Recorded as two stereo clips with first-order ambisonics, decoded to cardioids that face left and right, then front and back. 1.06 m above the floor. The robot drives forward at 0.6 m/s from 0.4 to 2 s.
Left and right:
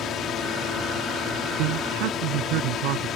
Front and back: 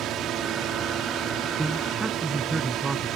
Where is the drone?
140° left.